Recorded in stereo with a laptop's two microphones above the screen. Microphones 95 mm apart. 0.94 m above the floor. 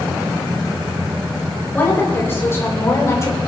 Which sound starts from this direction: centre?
A woman speaking, at 1.7 s.